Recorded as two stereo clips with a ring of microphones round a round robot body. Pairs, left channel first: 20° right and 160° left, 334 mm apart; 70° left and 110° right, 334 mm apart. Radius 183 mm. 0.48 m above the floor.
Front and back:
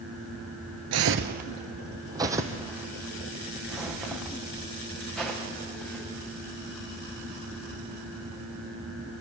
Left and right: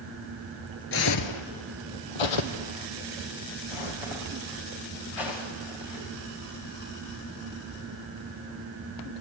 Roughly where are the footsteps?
Behind left.